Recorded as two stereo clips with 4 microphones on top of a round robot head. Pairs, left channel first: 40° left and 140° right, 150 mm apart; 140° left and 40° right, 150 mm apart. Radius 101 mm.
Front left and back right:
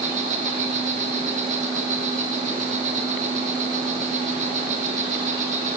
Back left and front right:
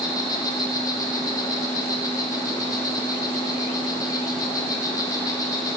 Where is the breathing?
No breathing in this recording.